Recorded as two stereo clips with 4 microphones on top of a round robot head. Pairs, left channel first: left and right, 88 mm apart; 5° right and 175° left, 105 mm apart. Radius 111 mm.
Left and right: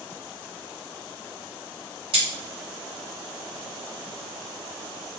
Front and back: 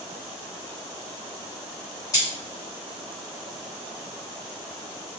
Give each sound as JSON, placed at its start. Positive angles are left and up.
{"t": 2.1, "sound": "cutlery clinking", "azimuth_deg": -65, "distance_m": 1.6}